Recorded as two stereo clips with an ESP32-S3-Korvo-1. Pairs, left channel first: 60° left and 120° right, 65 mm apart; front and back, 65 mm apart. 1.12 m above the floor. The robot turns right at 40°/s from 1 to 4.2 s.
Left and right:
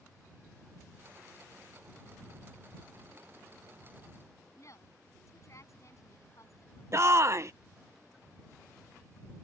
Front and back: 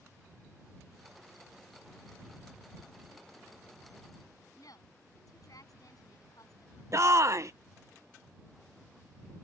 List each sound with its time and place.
4.6 s a woman speaking: 20° left
6.9 s a shout: 155° right